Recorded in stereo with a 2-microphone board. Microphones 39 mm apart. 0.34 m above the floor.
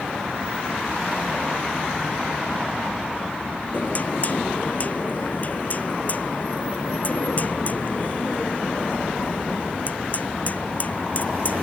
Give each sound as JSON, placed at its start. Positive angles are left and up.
{"t": 3.7, "sound": "knocking", "side_deg": 40}